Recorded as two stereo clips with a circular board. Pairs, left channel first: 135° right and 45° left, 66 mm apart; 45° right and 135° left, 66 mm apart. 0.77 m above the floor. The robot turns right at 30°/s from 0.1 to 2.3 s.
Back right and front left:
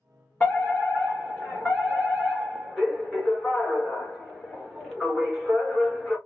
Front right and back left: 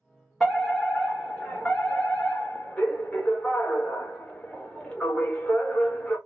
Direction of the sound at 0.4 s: 120° right.